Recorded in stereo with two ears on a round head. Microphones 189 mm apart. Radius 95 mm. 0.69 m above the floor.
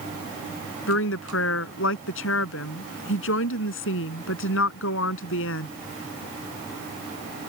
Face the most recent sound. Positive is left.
turn(degrees=70)  # may be behind; listen again after turning